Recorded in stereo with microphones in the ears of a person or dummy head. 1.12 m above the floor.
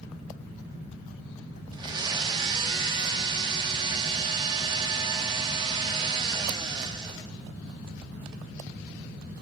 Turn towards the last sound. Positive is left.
turn(degrees=-30)  # may be behind; listen again after turning